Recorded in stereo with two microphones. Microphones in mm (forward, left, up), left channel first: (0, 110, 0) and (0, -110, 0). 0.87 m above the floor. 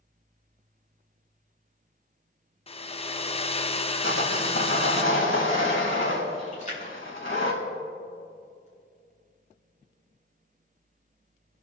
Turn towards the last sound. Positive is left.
turn(degrees=35)  # may be behind; listen again after turning